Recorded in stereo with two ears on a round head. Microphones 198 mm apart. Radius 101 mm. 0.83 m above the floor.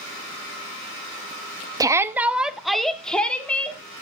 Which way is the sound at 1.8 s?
15° right (ahead or behind).